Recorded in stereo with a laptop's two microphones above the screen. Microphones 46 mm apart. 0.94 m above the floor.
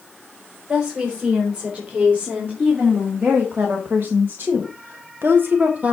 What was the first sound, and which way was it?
A woman speaking, 30° right (ahead or behind).